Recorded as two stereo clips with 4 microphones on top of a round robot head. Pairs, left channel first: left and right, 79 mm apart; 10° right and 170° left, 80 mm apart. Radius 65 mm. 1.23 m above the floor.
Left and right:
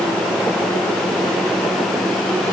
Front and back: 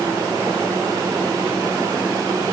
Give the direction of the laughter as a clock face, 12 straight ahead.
No laughter in this recording.